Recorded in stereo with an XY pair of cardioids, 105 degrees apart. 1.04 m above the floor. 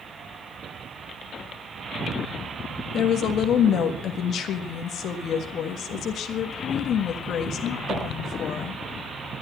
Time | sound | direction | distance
2.9 | a woman speaking | 70° left | 1.4 m